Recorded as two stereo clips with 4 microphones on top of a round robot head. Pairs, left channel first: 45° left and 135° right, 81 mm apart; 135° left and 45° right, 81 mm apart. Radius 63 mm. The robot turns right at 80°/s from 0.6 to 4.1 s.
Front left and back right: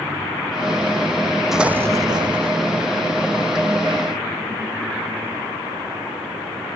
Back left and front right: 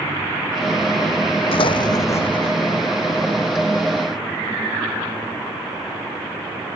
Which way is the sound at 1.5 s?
140° left.